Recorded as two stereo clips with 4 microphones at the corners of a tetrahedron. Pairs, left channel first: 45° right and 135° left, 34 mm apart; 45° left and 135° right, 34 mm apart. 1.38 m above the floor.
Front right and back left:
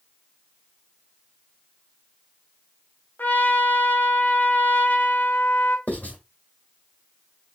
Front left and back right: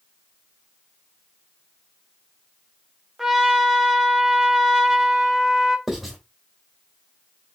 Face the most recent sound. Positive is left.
turn(degrees=-50)